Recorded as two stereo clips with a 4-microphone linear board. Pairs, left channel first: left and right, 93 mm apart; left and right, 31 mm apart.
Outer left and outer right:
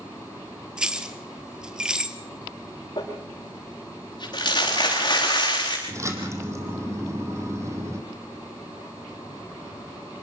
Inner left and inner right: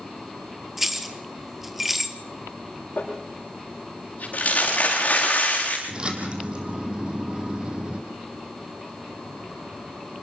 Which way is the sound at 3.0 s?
50° left (ahead or behind).